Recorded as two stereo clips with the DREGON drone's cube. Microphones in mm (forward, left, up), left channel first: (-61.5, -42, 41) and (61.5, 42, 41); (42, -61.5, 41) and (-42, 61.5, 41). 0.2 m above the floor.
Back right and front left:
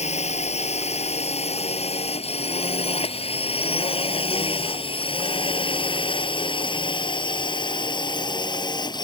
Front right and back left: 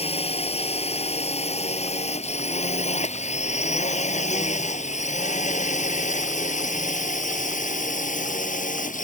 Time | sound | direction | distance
0.0 | a drone | 105° right | ?